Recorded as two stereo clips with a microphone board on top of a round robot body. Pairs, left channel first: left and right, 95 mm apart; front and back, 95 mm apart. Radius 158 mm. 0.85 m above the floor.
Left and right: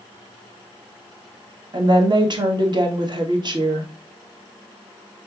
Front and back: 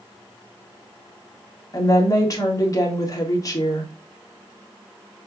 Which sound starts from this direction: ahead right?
A woman speaking, at 1.7 s.